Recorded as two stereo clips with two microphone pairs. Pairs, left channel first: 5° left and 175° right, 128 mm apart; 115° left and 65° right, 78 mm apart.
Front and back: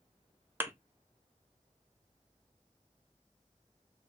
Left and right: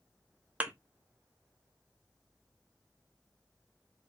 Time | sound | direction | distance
0.6 | a thud | 120° right | 0.5 m